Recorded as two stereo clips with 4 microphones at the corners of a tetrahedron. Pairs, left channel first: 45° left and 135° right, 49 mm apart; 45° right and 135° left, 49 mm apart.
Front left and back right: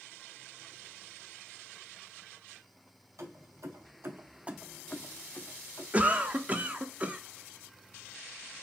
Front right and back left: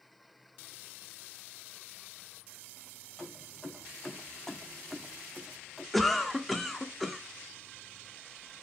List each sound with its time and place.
3.2 s keys jangling: 125° right, 1.7 m; by 5.8 s 50° left, 1.4 m
5.9 s a cough: 130° right, 0.7 m